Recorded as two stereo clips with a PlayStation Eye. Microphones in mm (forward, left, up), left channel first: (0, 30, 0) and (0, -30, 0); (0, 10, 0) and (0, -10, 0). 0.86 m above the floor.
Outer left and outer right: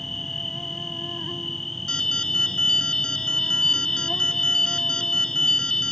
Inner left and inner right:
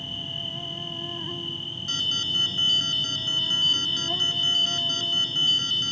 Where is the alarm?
15° left (ahead or behind).